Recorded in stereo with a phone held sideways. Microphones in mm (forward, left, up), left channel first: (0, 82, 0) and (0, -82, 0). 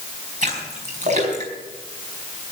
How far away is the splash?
About 5 m.